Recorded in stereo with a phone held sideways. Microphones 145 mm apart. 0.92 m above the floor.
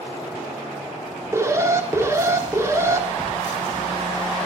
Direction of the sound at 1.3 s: 20° right (ahead or behind).